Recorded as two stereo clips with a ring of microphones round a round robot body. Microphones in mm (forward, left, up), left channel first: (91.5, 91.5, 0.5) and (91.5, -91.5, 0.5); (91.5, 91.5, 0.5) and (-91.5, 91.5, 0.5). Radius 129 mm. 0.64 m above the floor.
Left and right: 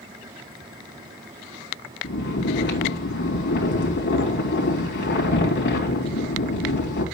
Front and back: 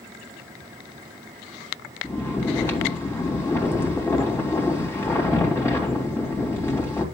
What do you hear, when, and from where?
2.0 s snoring: 75° left, 3 m